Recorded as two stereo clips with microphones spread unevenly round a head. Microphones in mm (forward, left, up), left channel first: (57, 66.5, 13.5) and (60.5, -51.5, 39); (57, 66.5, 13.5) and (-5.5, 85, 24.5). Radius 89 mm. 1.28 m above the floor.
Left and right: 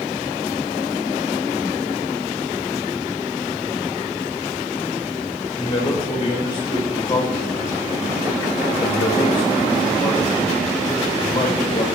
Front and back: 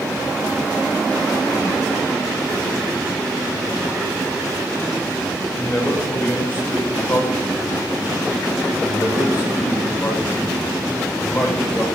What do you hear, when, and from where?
5.6 s a man speaking: 40° left, 7 m